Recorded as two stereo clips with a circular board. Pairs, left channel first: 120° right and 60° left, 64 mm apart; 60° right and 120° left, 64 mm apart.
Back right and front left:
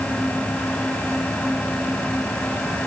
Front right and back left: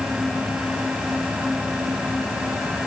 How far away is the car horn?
No car horn in this recording.